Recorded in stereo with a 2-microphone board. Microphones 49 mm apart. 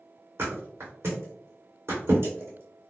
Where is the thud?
55° right (ahead or behind), 1.9 m.